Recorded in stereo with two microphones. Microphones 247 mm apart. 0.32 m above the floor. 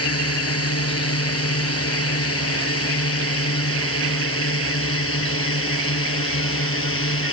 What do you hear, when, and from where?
0.0 s a drone: 70° left (ahead or behind); by 7.3 s 60° left (ahead or behind)